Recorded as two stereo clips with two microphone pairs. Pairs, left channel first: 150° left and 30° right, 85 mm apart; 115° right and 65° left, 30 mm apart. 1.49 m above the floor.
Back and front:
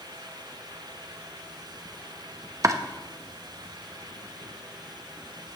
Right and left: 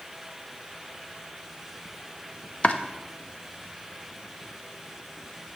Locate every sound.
2.6 s chopping: 75° right, 0.7 m